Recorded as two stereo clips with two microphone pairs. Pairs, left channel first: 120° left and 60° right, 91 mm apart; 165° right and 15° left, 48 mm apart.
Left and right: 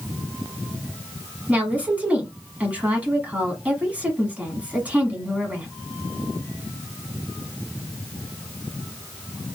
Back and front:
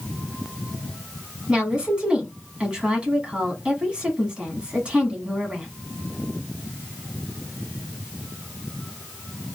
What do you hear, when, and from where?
1.5 s a woman speaking: 10° right, 1.1 m